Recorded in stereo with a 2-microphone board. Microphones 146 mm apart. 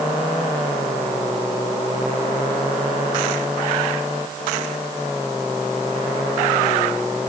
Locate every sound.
Only background noise.